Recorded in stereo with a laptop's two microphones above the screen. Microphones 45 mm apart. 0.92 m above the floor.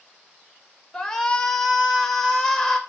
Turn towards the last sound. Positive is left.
turn(degrees=10)  # may be behind; listen again after turning